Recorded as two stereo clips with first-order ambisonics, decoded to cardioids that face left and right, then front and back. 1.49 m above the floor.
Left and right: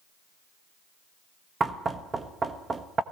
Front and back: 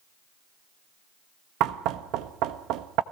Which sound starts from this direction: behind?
Knocking, at 1.6 s.